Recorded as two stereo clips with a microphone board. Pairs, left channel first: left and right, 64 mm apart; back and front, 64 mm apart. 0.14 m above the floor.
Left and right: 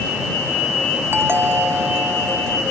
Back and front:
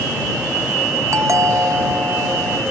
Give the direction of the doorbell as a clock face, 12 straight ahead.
1 o'clock.